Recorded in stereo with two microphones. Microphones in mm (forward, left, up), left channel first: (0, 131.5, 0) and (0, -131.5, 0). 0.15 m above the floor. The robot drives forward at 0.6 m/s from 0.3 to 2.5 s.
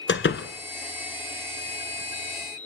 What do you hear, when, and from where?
0.1 s a door slam: 45° left (ahead or behind), 1.3 m; by 0.5 s 50° left (ahead or behind), 1.3 m